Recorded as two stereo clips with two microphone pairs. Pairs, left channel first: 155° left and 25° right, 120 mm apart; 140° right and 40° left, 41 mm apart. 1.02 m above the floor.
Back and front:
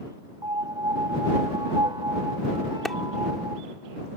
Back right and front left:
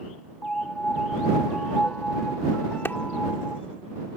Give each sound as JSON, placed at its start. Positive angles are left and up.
{"t": 0.4, "sound": "a piano", "azimuth_deg": -75}
{"t": 2.9, "sound": "a clap", "azimuth_deg": -115}